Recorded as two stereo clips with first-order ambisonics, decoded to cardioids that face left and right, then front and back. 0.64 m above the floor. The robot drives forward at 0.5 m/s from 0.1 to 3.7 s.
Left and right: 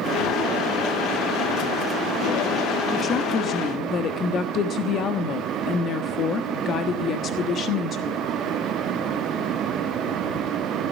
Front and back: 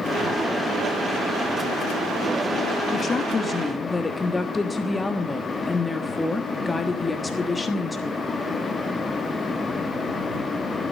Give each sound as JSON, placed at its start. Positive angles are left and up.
{"t": 2.9, "sound": "a woman speaking", "azimuth_deg": 50, "distance_m": 1.3}